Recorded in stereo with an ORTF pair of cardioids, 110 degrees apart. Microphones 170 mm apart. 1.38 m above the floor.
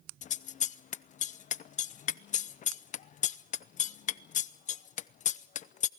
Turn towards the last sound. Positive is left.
turn(degrees=50)